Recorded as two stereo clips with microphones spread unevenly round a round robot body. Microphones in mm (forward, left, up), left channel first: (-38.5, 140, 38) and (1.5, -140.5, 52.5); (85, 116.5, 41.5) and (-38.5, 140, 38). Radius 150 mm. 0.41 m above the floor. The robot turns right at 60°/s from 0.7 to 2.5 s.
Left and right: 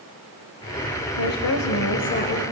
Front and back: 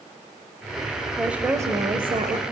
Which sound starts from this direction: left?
A woman speaking, at 1.2 s.